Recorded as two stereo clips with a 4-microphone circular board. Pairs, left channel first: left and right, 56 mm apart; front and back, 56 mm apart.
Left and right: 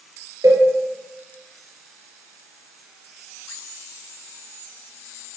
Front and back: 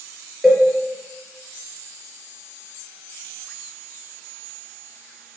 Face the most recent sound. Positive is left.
turn(degrees=-90)